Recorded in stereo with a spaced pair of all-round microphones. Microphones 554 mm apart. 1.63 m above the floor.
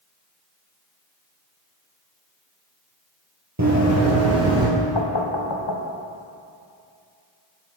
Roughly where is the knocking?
Left.